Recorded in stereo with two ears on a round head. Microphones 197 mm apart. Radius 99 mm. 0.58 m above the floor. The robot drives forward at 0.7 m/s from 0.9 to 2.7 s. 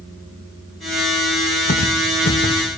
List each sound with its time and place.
1.7 s footsteps: 40° left (ahead or behind), 4 m; by 2.6 s 45° left (ahead or behind), 3.5 m